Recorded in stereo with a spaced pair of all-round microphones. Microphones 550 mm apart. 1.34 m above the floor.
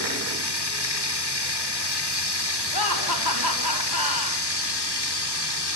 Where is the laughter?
40° left (ahead or behind), 5.5 m.